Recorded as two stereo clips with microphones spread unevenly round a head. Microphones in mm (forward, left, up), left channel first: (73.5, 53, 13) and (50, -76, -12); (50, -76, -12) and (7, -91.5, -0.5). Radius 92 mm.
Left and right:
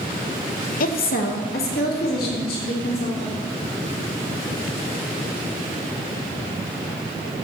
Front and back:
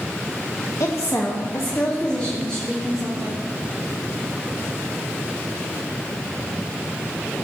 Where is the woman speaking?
65° left, 1.1 m; by 3.4 s 110° left, 4.5 m.